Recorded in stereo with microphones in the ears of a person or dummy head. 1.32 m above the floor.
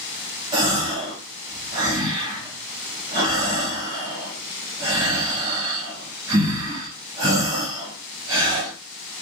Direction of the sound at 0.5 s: 25° right (ahead or behind).